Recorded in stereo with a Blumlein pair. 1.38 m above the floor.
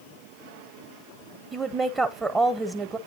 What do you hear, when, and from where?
1.5 s a woman speaking: 15° right, 0.9 m